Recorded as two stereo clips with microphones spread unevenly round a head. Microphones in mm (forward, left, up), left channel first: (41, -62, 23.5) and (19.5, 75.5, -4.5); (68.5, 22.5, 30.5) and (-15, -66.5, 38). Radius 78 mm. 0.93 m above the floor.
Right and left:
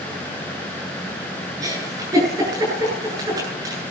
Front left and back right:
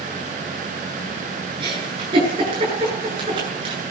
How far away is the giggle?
About 9 m.